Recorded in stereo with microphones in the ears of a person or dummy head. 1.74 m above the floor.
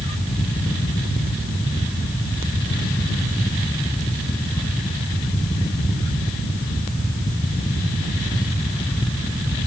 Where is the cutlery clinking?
No cutlery clinking in this recording.